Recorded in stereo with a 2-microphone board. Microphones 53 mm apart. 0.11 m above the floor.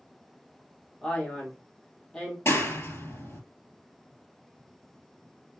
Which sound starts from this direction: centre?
A man speaking, at 1.0 s.